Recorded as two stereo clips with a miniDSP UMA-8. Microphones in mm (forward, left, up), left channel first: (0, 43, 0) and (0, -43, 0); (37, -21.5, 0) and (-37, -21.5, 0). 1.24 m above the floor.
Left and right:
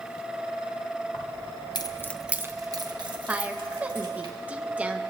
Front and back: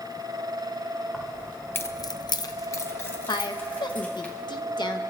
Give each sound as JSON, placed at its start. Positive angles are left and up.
{"t": 1.1, "sound": "keys jangling", "azimuth_deg": 80, "distance_m": 1.3}
{"t": 3.3, "sound": "a woman speaking", "azimuth_deg": -15, "distance_m": 1.0}